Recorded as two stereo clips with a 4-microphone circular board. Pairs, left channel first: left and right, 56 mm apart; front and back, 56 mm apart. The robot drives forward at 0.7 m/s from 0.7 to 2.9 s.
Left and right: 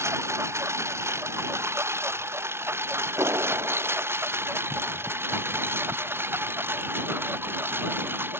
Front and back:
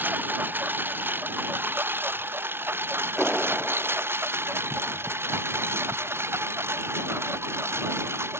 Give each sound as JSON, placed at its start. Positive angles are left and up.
{"t": 0.0, "sound": "a lawn mower", "azimuth_deg": -125}
{"t": 3.2, "sound": "a clap", "azimuth_deg": -85}